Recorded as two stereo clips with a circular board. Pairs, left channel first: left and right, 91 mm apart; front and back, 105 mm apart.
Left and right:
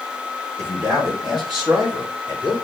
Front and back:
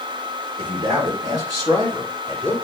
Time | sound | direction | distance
0.6 | a man speaking | 140° right | 3.5 m